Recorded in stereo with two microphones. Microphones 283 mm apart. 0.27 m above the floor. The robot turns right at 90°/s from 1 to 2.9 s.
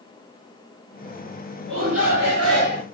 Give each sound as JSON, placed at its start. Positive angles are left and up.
{"t": 1.7, "sound": "a shout", "azimuth_deg": -135, "distance_m": 4.0}